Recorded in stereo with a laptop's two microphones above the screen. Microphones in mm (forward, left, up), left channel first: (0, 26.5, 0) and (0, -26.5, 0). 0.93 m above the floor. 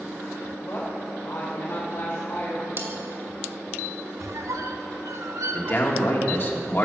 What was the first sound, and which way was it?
A woman speaking, 45° left (ahead or behind).